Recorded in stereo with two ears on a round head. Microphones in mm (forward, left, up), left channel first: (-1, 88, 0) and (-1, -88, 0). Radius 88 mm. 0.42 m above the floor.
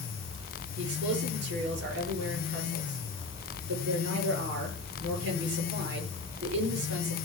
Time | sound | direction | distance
0.8 | a man speaking | 60° right (ahead or behind) | 7.5 m